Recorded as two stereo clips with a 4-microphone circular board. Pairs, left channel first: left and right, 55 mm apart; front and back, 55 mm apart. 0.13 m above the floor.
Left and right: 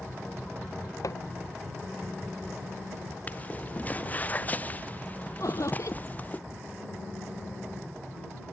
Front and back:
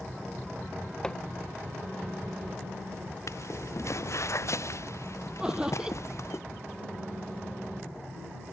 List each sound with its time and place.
1.0 s hammering: 75° left
3.3 s footsteps: 30° left
5.4 s laughter: 105° left